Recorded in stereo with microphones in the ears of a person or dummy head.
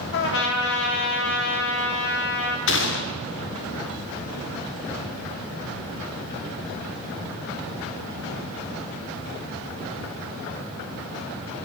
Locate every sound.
0.1 s a trumpet: 60° left (ahead or behind), 0.8 m
2.7 s a gunshot: 55° left (ahead or behind), 0.8 m